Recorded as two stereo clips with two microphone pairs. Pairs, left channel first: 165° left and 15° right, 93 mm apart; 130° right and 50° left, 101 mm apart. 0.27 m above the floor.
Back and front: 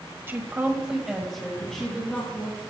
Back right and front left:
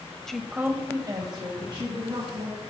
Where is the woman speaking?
55° right, 1.0 m; by 2.6 s 85° left, 2.5 m.